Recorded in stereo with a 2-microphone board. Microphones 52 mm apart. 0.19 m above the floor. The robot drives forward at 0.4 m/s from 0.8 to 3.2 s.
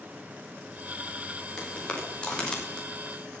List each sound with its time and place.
1.6 s footsteps: 15° left (ahead or behind), 6 m; by 2.9 s 10° left (ahead or behind), 5 m